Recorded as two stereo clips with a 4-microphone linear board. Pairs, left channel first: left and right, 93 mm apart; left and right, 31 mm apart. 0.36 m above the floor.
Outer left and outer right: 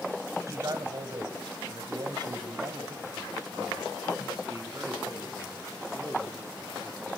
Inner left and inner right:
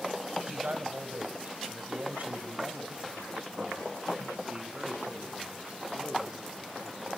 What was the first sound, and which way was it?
A man speaking, 40° right (ahead or behind).